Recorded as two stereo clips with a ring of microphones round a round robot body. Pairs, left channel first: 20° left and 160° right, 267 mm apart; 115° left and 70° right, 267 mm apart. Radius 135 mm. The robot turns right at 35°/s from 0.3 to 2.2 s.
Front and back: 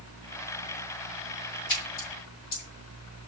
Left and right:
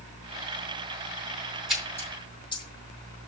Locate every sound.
1.7 s a splash: 20° left, 5 m; by 2.6 s 40° left, 5 m